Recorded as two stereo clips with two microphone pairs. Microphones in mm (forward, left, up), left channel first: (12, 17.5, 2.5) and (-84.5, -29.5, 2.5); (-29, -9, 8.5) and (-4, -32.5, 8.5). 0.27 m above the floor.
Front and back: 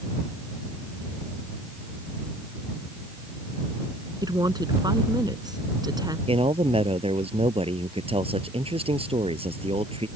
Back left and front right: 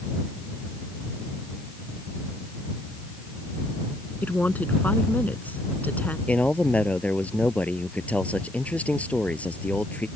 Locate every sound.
4.2 s a woman speaking: 160° left
6.3 s a man speaking: straight behind